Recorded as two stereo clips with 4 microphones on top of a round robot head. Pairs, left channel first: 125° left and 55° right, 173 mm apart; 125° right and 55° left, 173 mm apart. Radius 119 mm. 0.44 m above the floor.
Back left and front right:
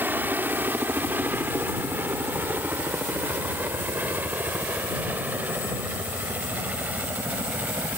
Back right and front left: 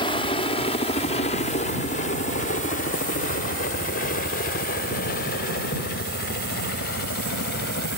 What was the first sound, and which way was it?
A helicopter, 120° right.